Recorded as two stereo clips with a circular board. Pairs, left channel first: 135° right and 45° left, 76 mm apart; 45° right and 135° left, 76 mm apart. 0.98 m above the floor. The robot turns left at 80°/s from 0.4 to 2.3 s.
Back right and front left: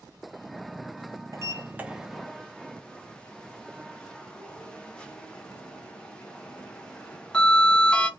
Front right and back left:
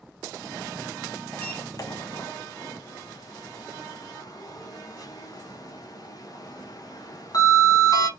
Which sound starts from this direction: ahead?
A sliding door, at 1.3 s.